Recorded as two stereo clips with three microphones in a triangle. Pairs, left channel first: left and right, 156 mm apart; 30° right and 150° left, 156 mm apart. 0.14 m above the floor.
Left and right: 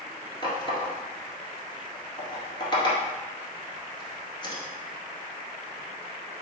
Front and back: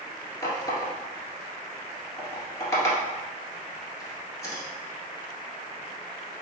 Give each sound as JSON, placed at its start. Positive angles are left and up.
{"t": 0.4, "sound": "a running tap", "azimuth_deg": 35, "distance_m": 1.5}